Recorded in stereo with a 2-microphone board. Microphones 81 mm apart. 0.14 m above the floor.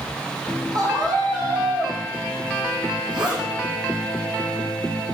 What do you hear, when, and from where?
0.7 s a scream: 50° right (ahead or behind), 8 m
3.1 s a zipper: 80° right, 7.5 m